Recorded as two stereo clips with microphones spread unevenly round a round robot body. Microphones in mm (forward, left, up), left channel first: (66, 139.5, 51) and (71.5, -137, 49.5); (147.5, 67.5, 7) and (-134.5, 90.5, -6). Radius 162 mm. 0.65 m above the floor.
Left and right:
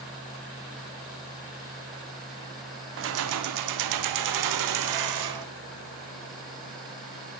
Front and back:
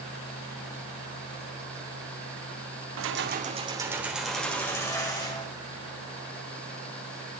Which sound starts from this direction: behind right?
Keys jangling, at 3.0 s.